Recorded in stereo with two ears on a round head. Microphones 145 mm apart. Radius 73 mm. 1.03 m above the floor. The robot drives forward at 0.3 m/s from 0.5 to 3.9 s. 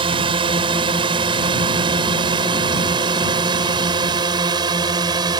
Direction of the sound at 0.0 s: 30° right (ahead or behind).